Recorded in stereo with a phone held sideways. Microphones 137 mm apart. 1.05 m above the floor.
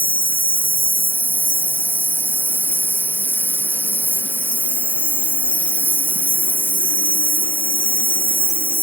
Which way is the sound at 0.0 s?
15° right (ahead or behind).